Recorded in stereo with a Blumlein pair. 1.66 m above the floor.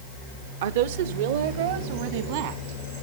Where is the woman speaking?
55° right, 0.8 m.